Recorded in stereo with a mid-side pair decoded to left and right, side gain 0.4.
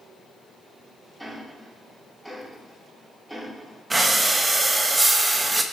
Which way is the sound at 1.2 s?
5° right.